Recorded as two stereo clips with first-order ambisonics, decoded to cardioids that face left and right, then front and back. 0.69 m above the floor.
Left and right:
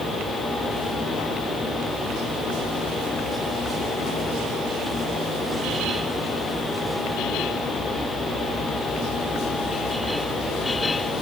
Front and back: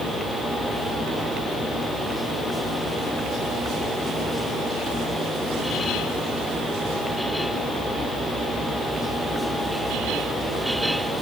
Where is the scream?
I don't hear a scream.